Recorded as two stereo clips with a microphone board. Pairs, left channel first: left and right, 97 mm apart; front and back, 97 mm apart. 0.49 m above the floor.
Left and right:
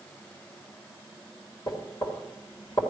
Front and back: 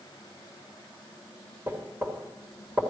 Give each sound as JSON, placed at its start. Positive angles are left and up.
{"t": 1.7, "sound": "knocking", "azimuth_deg": 120, "distance_m": 1.8}